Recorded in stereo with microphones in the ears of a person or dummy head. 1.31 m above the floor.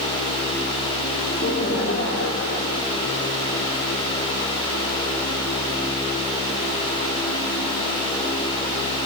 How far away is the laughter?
About 1.8 m.